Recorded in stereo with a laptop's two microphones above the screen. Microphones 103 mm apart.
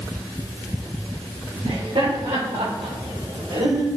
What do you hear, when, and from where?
1.6 s laughter: 80° right, 4 m; by 3.9 s 65° right (ahead or behind), 4 m